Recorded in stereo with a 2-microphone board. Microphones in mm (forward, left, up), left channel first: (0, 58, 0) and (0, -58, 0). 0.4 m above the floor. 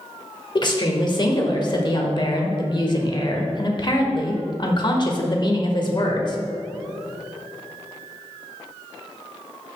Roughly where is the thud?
I don't hear a thud.